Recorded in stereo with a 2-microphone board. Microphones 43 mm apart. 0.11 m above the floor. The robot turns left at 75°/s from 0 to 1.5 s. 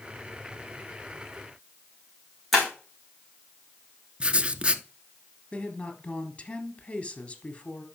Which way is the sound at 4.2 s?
25° right (ahead or behind).